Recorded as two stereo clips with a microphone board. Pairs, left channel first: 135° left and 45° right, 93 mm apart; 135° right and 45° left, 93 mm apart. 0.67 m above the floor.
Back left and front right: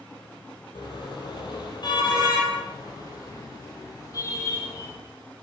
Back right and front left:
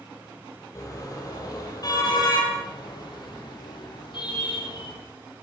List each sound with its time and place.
0.8 s a car horn: 170° left, 8.5 m; by 4.9 s 170° right, 10 m